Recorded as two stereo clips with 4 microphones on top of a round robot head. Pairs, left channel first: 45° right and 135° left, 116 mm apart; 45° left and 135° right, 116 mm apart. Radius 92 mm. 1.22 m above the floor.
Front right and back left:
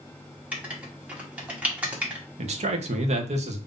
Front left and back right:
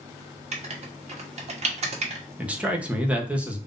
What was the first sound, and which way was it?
Writing, 150° right.